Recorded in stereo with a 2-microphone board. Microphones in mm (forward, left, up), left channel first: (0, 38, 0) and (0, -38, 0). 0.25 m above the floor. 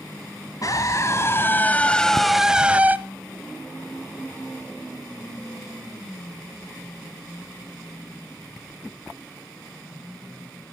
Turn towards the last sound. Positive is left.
turn(degrees=-25)  # may be behind; listen again after turning